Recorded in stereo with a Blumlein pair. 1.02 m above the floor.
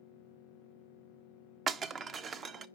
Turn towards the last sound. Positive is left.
turn(degrees=-25)